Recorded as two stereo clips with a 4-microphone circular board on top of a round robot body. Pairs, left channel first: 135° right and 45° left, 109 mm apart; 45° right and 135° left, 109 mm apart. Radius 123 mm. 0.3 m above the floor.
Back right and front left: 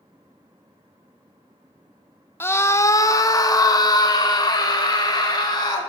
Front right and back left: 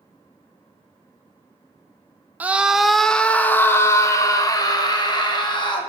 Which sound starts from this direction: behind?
A scream, at 2.4 s.